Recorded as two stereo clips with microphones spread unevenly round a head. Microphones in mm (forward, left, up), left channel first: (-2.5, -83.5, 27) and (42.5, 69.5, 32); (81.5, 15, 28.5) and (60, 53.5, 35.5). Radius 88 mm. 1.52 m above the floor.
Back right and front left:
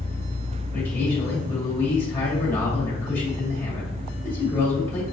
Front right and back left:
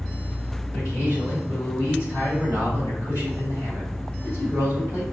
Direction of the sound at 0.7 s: 175° left.